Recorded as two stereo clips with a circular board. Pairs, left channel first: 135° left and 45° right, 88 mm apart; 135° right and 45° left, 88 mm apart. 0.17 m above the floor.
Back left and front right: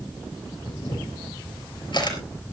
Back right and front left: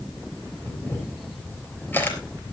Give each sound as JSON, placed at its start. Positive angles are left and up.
{"t": 0.7, "sound": "a camera shutter", "azimuth_deg": 160, "distance_m": 4.0}